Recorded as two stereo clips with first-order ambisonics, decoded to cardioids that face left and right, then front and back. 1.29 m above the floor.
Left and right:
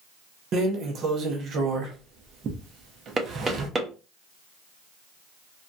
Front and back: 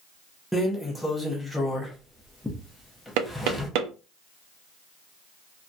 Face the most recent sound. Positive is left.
turn(degrees=-165)